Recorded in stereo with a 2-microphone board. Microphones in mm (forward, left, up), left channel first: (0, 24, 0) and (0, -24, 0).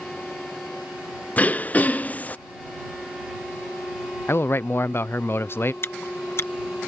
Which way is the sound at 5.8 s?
55° left (ahead or behind).